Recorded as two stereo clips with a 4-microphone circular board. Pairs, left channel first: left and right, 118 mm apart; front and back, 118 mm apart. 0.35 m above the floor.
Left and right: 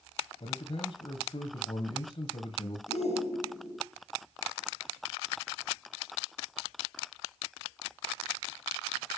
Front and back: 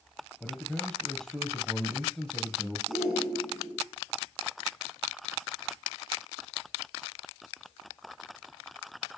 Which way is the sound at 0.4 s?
85° left.